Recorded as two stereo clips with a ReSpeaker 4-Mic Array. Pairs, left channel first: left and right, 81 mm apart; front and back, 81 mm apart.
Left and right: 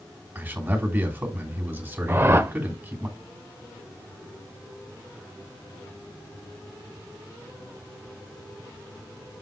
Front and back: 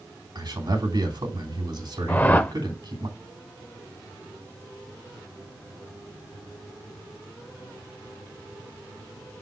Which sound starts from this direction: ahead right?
A whoosh, at 2.1 s.